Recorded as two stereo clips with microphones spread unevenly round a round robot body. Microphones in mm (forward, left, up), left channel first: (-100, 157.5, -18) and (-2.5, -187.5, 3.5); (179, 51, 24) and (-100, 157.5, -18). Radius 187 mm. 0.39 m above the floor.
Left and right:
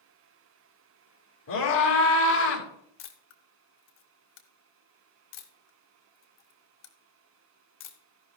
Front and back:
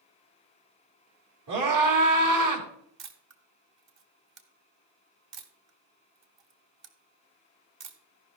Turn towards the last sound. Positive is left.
turn(degrees=145)